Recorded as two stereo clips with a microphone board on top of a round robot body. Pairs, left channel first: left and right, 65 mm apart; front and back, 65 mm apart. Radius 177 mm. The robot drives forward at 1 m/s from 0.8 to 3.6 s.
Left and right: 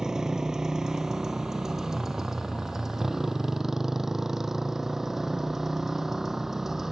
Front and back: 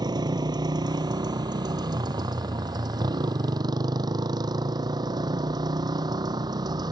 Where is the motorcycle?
170° right; by 6.9 s 175° right.